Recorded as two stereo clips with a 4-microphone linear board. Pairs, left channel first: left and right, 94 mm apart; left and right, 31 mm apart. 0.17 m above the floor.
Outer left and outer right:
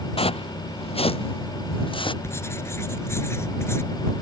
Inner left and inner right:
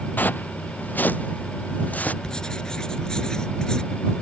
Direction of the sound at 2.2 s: 25° left (ahead or behind).